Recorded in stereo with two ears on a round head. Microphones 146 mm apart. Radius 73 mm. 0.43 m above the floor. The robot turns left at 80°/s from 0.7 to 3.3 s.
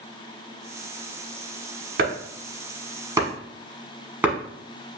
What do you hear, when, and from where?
2.0 s chopping: 65° right (ahead or behind), 1.2 m; by 4.3 s 10° right (ahead or behind), 1.2 m